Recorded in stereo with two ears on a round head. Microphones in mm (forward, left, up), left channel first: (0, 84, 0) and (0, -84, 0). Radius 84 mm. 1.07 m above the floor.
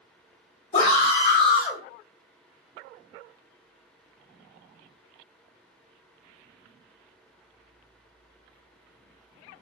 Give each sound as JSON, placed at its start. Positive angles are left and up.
{"t": 0.7, "sound": "a scream", "side_deg": 35, "distance_m": 1.7}